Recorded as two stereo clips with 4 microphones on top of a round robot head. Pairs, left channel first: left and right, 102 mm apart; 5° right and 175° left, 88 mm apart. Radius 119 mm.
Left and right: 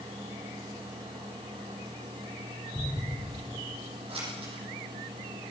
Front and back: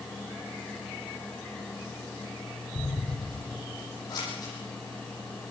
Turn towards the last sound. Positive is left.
turn(degrees=-55)